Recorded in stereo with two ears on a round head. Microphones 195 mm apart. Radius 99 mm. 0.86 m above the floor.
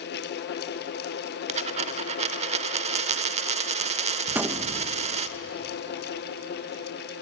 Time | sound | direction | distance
1.5 | a dropped coin | 30° right (ahead or behind) | 1.0 m
4.3 | a gunshot | 10° right (ahead or behind) | 0.8 m